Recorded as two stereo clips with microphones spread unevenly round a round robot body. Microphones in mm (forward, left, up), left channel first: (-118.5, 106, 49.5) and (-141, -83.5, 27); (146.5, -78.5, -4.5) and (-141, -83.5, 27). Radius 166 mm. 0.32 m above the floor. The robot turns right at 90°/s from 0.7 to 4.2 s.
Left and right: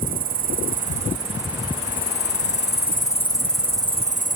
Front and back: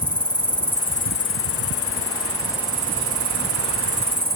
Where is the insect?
80° right; by 4.4 s 125° right.